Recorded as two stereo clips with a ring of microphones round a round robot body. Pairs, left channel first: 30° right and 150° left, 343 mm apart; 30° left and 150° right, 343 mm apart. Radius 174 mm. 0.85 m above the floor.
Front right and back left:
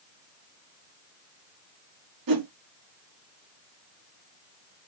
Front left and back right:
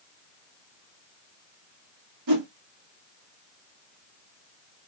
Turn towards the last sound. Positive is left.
turn(degrees=175)